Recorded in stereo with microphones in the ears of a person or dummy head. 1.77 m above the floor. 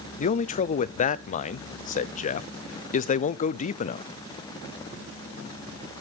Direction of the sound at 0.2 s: 40° left (ahead or behind).